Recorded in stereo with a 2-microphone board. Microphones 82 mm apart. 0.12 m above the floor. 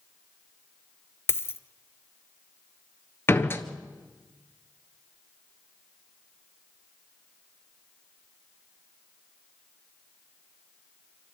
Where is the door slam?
30° left (ahead or behind), 1.4 m.